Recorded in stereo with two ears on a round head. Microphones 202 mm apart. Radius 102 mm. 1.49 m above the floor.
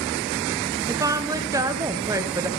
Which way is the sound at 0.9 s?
15° right (ahead or behind).